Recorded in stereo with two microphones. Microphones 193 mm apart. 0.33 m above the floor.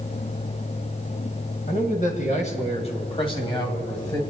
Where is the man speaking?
45° left (ahead or behind), 2.5 m; by 4.2 s 20° left (ahead or behind), 2.5 m.